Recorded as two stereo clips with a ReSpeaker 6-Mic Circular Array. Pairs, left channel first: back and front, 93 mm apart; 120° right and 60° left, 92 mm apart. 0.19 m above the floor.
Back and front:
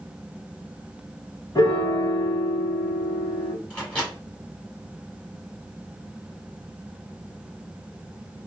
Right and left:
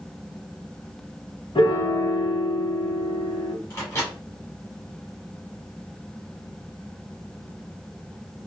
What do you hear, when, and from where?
1.6 s a piano: 140° right, 0.8 m
3.7 s a microwave: 110° right, 1.5 m